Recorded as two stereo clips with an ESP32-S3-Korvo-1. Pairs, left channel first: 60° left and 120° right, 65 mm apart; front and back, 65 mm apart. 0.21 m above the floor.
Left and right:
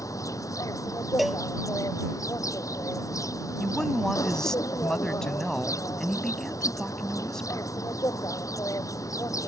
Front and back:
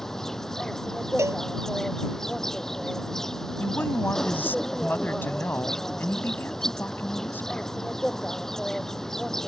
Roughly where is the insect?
Left.